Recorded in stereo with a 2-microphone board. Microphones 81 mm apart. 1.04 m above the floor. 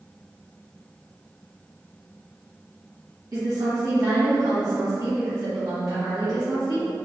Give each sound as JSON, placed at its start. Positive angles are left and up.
{"t": 3.3, "sound": "a woman speaking", "side_deg": -40, "distance_m": 1.4}